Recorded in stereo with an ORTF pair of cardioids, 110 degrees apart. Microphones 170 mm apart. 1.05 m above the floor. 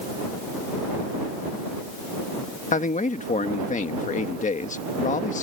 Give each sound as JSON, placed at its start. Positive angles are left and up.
{"t": 2.7, "sound": "a man speaking", "azimuth_deg": 50}